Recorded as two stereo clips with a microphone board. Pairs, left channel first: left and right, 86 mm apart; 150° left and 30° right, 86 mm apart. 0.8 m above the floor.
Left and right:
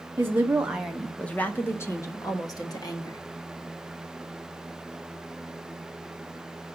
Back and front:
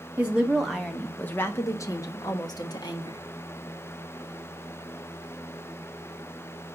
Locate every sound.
0.2 s a woman speaking: 75° right, 0.9 m; by 3.2 s 125° left, 1.6 m